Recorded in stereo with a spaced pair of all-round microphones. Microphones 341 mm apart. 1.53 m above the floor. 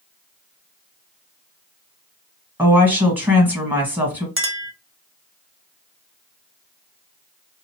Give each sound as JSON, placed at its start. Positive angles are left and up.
{"t": 2.6, "sound": "a woman speaking", "side_deg": -5, "distance_m": 1.6}
{"t": 4.4, "sound": "a clink", "side_deg": -40, "distance_m": 0.6}